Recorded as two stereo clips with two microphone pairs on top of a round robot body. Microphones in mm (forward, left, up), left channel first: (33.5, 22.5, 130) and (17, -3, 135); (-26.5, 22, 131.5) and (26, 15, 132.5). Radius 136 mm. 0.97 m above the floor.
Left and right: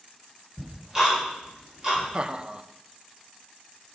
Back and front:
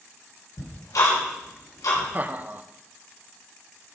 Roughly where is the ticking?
Behind.